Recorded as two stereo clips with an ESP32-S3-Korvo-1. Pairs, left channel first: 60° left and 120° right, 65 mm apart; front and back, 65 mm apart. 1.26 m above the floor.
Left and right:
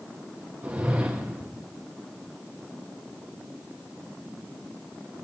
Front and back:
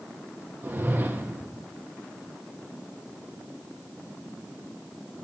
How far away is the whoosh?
About 0.6 m.